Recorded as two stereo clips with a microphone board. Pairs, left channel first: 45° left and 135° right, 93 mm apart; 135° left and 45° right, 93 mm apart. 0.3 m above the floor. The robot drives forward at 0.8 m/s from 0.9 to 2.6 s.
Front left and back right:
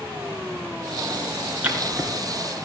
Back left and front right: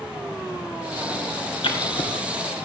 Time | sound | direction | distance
1.6 | writing | 150° left | 1.9 m